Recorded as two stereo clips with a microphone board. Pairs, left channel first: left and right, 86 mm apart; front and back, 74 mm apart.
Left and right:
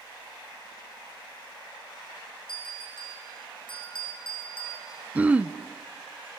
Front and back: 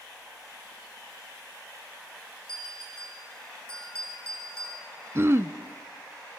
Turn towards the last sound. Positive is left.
turn(degrees=-155)